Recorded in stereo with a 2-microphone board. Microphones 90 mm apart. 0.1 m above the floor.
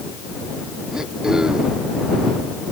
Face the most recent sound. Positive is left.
turn(degrees=-5)  # may be behind; listen again after turning